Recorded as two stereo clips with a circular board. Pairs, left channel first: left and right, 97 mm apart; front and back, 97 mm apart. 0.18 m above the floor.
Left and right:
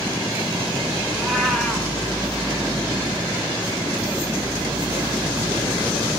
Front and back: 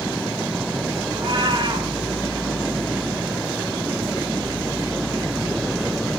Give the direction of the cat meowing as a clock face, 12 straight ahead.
6 o'clock.